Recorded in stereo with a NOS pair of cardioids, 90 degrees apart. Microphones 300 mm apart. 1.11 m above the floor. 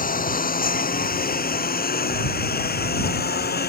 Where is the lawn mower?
25° left; by 3.7 s 30° left.